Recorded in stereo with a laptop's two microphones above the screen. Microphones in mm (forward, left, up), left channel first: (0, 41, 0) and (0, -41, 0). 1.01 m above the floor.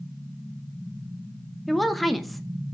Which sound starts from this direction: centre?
A woman speaking, at 1.7 s.